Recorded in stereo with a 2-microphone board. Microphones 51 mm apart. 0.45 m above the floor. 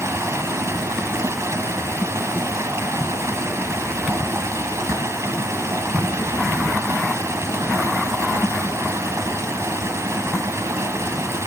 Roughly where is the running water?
Right.